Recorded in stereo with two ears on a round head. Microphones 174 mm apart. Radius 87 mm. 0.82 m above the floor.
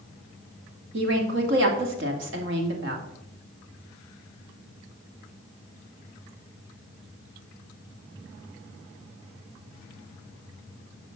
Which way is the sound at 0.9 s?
65° right (ahead or behind).